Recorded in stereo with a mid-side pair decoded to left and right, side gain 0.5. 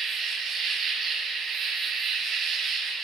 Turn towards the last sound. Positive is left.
turn(degrees=-55)